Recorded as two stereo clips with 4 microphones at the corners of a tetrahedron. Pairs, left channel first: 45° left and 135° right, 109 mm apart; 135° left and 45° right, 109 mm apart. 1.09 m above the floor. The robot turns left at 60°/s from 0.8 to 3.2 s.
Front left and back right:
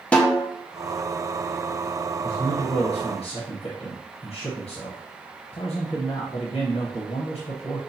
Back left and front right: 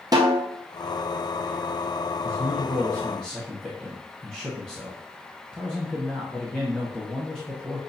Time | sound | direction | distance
0.1 | a snare drum | 30° right | 0.7 m
2.2 | a man speaking | 110° left | 0.8 m